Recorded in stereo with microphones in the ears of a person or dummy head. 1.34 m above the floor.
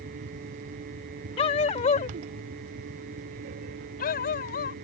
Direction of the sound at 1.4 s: 35° left (ahead or behind).